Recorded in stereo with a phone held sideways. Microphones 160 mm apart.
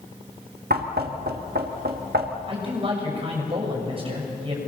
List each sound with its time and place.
0.7 s knocking: 85° right, 1.6 m
2.5 s a man speaking: 35° right (ahead or behind), 6.5 m